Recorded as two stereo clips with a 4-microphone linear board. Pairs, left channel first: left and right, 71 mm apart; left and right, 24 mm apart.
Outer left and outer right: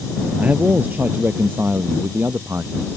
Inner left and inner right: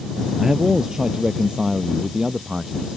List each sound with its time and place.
0.4 s a man speaking: 20° right (ahead or behind); by 3.0 s 30° right (ahead or behind)